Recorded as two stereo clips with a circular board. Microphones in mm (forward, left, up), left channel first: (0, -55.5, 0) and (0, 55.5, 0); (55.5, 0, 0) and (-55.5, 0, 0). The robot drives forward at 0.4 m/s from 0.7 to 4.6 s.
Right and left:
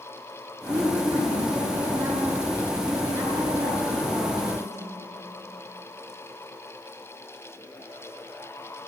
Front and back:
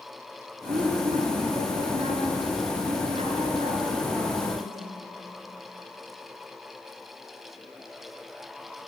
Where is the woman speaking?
140° left, 10 m; by 5.0 s 145° left, 11 m.